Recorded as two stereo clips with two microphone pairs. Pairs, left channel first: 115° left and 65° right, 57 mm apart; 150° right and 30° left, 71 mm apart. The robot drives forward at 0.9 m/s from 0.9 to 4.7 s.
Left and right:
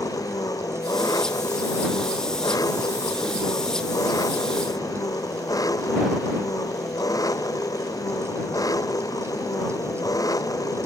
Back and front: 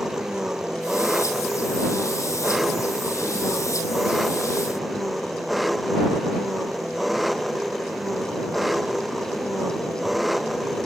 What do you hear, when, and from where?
0.0 s an engine running: 115° left; by 10.9 s 120° left